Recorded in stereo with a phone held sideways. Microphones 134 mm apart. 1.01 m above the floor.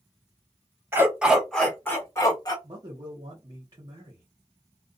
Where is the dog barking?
20° right (ahead or behind), 1.0 m; by 2.5 s 30° left (ahead or behind), 1.3 m.